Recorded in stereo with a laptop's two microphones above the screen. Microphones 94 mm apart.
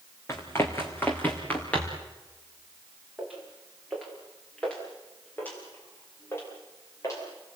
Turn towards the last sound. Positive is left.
turn(degrees=35)  # may be behind; listen again after turning